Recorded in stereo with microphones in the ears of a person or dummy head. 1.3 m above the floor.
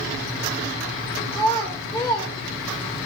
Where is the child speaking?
10° left (ahead or behind), 0.5 m.